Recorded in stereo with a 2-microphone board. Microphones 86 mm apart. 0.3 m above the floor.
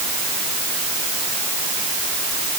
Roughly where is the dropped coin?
I don't hear a dropped coin.